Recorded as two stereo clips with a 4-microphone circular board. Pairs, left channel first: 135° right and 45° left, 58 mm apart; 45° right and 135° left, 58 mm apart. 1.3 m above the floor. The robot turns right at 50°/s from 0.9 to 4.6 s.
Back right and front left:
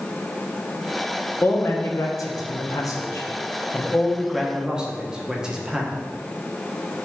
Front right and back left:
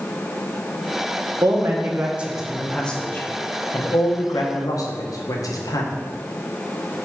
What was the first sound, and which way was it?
A man speaking, 165° left.